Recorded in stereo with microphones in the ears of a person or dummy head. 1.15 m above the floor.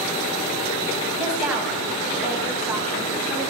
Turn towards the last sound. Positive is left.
turn(degrees=-10)  # may be behind; listen again after turning